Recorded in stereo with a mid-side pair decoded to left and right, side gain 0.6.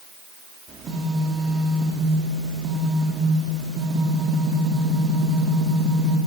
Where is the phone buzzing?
40° right, 4 m.